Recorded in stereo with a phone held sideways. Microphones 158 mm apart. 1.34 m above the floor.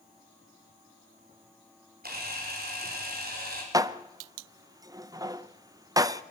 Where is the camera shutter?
80° right, 4.5 m.